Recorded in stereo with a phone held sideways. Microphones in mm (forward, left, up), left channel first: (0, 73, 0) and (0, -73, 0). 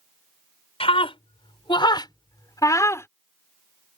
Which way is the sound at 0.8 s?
40° left (ahead or behind).